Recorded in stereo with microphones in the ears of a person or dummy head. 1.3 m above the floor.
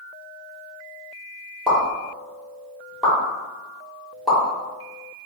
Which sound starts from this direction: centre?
A pop, at 1.7 s.